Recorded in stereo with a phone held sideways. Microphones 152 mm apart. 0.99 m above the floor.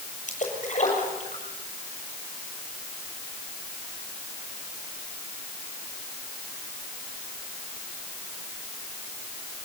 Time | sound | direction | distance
0.3 | a splash | 55° left (ahead or behind) | 7.5 m